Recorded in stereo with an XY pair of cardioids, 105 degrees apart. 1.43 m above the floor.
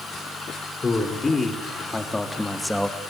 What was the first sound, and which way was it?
A man speaking, 30° left.